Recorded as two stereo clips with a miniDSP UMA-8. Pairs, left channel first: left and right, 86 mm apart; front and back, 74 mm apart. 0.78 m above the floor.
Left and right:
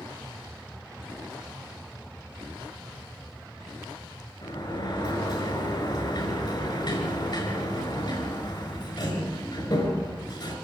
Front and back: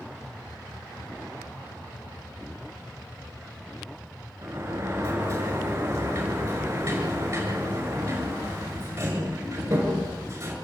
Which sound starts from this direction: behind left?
A sliding door, at 4.4 s.